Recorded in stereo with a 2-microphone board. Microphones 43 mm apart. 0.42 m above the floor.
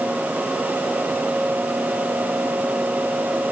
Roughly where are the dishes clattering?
No dishes clattering in this recording.